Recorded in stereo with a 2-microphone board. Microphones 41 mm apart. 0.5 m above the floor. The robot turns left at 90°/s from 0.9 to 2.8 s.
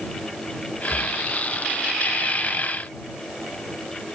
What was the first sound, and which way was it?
Breathing, 40° left (ahead or behind).